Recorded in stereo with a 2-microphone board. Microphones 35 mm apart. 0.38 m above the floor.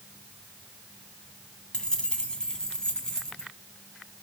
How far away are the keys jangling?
About 2 m.